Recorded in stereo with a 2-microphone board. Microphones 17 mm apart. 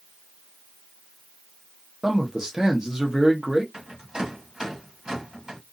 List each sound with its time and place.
2.0 s a man speaking: 45° right (ahead or behind), 0.9 m
3.7 s a rattle: 55° right (ahead or behind), 1.6 m